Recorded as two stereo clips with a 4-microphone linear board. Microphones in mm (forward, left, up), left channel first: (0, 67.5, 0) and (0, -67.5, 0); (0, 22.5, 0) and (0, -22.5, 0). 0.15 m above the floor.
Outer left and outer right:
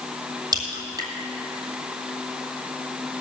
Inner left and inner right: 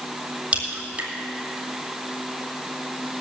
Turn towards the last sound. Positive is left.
turn(degrees=-30)  # may be behind; listen again after turning